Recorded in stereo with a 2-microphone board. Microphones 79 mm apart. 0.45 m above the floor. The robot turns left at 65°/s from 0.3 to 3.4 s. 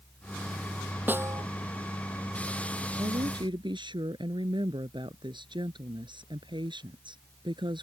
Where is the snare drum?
20° right (ahead or behind); by 1.4 s 45° right (ahead or behind).